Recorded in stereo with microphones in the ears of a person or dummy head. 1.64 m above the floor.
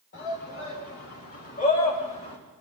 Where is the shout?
50° left (ahead or behind), 5.5 m; by 2.4 s 25° left (ahead or behind), 2.5 m.